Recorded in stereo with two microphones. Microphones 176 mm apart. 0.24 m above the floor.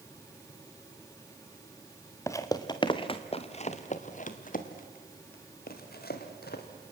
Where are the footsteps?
15° left (ahead or behind), 1.8 m; by 6.6 s 65° left (ahead or behind), 3.5 m.